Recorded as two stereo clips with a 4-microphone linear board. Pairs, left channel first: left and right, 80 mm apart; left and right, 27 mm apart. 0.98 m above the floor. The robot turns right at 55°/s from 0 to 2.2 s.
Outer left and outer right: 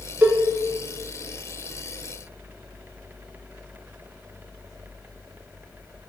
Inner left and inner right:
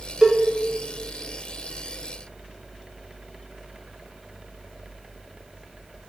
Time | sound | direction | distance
0.2 | a cowbell | 25° right (ahead or behind) | 0.5 m